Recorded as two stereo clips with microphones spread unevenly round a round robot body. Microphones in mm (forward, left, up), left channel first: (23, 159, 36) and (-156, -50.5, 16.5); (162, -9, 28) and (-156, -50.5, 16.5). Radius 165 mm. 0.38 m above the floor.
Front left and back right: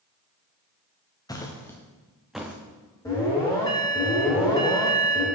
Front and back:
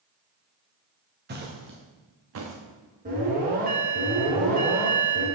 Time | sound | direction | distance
1.3 | footsteps | 125° left | 2 m
3.0 | an alarm | 125° left | 4 m